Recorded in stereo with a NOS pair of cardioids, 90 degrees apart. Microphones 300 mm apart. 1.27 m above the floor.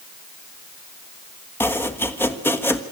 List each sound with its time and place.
1.6 s chopping: 5° left, 1.4 m